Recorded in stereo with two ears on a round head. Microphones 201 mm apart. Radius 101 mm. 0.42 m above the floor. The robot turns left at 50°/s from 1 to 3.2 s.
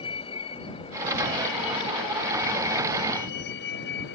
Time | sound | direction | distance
0.0 | a vehicle | 155° left | ?